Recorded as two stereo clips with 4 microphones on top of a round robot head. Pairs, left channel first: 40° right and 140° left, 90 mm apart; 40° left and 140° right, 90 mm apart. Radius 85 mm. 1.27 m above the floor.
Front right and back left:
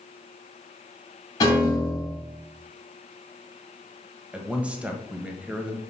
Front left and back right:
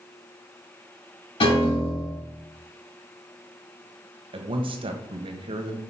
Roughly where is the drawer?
I don't hear a drawer.